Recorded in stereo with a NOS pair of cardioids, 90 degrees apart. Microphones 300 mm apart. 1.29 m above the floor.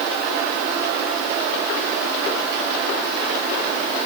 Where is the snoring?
No snoring in this recording.